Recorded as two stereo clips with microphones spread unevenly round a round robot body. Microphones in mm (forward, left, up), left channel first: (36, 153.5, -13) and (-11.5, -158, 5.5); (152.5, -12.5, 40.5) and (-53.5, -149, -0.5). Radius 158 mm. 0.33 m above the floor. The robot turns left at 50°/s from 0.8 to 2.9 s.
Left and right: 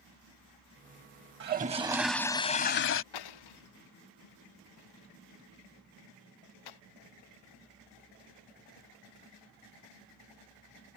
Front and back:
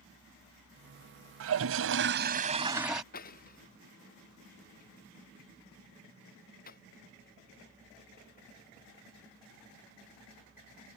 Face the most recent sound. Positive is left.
turn(degrees=100)